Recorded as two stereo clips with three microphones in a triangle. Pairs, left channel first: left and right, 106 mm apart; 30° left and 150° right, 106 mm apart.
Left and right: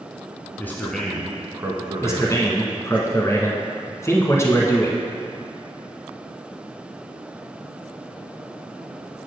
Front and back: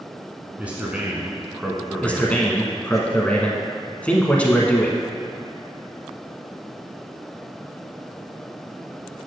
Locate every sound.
0.6 s a man speaking: 140° left, 1.2 m; by 3.0 s 55° right, 2 m
2.0 s a man speaking: 90° left, 1.1 m